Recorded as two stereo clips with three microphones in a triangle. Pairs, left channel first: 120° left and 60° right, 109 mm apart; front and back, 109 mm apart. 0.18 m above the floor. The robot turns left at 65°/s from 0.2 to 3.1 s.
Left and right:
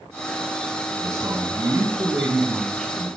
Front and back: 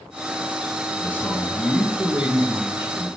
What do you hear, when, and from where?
1.0 s a man speaking: 40° right, 1.6 m; by 3.1 s 175° right, 1.6 m